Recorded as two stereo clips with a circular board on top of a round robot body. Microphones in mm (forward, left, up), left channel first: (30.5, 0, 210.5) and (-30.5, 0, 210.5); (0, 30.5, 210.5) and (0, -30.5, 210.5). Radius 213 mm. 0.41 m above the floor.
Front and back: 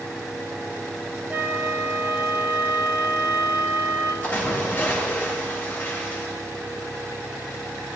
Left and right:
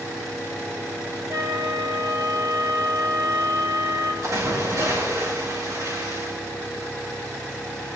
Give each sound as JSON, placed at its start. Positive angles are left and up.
{"t": 1.3, "sound": "a flute", "azimuth_deg": -115, "distance_m": 2.5}
{"t": 4.2, "sound": "a splash", "azimuth_deg": -65, "distance_m": 7.0}